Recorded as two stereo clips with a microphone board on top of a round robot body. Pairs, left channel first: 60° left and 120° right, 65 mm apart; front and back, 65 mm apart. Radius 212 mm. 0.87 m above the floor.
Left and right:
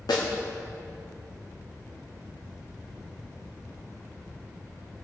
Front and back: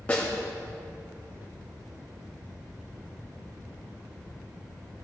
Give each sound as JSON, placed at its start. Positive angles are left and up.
{"t": 0.1, "sound": "a snare drum", "azimuth_deg": 70, "distance_m": 1.2}